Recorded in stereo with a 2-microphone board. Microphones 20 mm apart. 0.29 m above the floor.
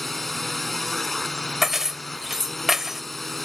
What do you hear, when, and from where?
0.0 s a drone: 10° left (ahead or behind)
1.6 s keys jangling: 15° right (ahead or behind)